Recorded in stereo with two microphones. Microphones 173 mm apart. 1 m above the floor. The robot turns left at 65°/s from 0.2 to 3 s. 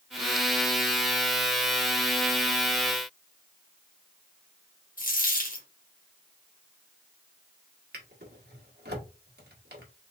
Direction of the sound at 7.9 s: 70° right (ahead or behind).